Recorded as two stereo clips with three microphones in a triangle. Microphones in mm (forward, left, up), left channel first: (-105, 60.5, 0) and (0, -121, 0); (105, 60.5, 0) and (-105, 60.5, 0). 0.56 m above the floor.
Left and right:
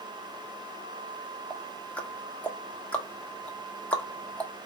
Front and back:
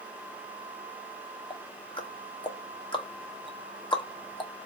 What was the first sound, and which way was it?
Ticking, 40° left.